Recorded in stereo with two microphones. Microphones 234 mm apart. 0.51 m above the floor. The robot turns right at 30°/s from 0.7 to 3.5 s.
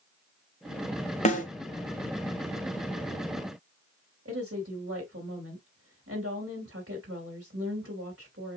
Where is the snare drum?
30° left (ahead or behind), 1.3 m; by 1.4 s 35° left (ahead or behind), 1.3 m.